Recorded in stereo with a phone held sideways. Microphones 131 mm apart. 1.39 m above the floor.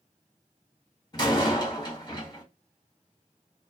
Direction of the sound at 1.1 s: 35° left (ahead or behind).